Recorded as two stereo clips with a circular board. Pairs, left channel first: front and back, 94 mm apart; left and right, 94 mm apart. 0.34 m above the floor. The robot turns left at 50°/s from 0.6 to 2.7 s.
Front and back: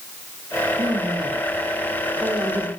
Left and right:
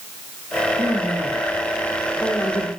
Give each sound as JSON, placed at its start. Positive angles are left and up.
{"t": 0.8, "sound": "a woman speaking", "azimuth_deg": -145, "distance_m": 7.5}